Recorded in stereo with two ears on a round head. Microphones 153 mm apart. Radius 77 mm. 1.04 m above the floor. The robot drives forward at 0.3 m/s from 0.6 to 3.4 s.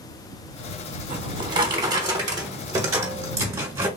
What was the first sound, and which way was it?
A drawer, 30° right (ahead or behind).